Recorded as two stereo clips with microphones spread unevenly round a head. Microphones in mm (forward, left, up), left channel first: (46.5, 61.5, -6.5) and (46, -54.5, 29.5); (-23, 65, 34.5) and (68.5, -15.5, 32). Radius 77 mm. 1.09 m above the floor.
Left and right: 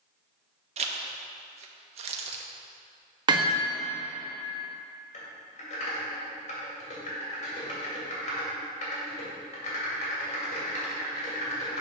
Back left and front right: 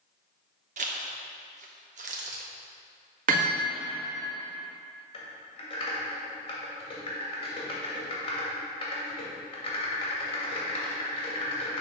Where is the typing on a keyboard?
95° left, 2.5 m.